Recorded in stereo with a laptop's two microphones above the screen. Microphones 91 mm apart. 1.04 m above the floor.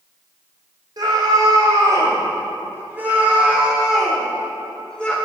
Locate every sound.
1.0 s a scream: 50° right (ahead or behind), 4 m; by 5.2 s 10° left (ahead or behind), 4.5 m